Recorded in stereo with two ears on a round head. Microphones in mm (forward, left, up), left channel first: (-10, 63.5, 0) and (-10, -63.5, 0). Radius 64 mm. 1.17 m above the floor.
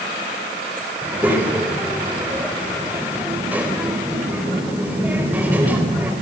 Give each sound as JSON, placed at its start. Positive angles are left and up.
{"t": 1.0, "sound": "a child speaking", "side_deg": -10, "distance_m": 3.5}